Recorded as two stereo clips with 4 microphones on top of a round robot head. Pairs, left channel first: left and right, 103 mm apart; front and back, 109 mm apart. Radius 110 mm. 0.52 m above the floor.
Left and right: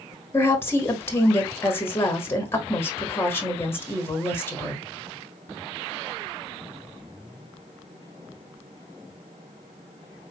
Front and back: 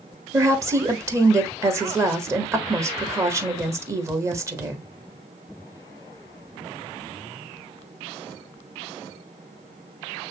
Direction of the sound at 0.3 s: 140° left.